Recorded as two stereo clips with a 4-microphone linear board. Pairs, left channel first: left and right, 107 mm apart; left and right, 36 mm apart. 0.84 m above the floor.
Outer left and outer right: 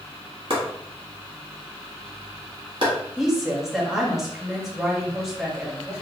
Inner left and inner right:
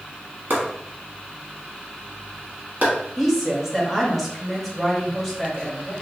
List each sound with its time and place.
0.5 s chopping: 55° right (ahead or behind), 1.1 m
3.2 s a woman speaking: 5° right (ahead or behind), 0.9 m